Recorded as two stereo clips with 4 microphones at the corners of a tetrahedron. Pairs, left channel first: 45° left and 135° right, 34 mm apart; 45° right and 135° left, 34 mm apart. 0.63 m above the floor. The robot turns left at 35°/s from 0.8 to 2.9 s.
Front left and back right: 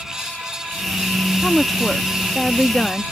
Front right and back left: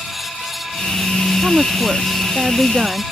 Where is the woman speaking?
130° left; by 3.0 s 75° left.